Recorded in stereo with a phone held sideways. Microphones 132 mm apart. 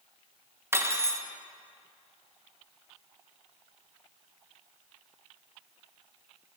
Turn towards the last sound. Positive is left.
turn(degrees=-20)  # may be behind; listen again after turning